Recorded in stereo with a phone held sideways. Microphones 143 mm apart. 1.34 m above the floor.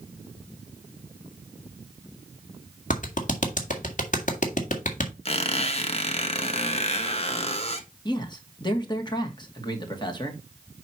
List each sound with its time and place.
2.9 s a clap: 60° left (ahead or behind), 1.7 m
5.2 s a squeak: 45° left (ahead or behind), 1.1 m
8.1 s a man speaking: 30° left (ahead or behind), 1.8 m